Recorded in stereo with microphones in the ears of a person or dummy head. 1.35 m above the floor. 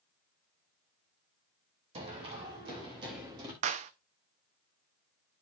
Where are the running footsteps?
30° right (ahead or behind), 5 m; by 3.5 s 25° right (ahead or behind), 5 m.